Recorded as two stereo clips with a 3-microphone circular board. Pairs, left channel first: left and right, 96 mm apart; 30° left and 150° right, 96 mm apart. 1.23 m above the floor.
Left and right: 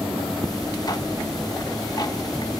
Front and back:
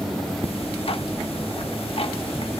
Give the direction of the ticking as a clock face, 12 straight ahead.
11 o'clock.